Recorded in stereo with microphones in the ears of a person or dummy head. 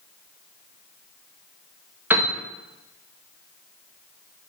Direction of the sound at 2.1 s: 10° right (ahead or behind).